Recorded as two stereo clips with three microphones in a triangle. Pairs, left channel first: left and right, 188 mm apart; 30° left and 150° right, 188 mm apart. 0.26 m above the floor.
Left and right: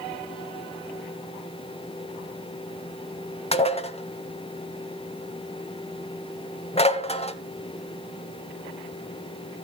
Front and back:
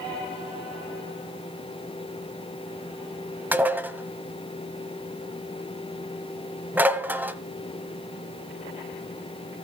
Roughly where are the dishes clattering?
Behind left.